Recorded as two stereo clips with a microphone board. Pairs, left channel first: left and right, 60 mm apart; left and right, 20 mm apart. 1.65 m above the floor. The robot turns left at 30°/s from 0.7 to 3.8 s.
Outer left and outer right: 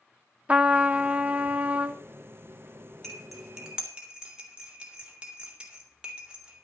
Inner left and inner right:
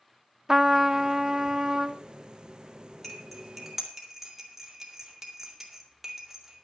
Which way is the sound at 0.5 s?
25° right (ahead or behind).